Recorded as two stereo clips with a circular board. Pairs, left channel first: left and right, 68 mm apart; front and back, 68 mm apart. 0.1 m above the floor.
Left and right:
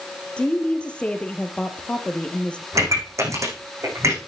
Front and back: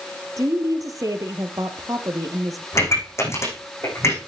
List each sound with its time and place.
0.4 s a woman speaking: 160° left, 2.0 m
2.7 s a pop: 50° right, 6.5 m